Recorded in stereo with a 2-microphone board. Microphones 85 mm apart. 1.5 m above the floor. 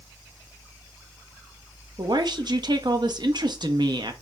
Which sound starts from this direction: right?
A woman speaking, at 2.0 s.